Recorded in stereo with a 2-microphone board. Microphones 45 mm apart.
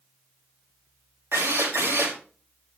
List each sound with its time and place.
1.3 s a drill: 65° right (ahead or behind), 5 m